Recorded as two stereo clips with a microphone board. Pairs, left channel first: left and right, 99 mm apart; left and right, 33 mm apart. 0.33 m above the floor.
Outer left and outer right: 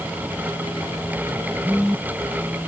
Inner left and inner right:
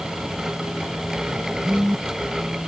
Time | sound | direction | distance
1.6 | a phone buzzing | 10° right (ahead or behind) | ?